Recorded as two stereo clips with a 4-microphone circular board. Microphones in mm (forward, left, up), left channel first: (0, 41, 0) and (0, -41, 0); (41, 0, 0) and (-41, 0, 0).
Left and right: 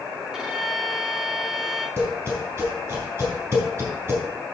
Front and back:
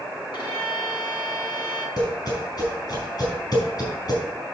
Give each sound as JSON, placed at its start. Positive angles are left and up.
{"t": 0.3, "sound": "a violin", "azimuth_deg": -10, "distance_m": 2.5}
{"t": 2.0, "sound": "tapping", "azimuth_deg": -30, "distance_m": 4.0}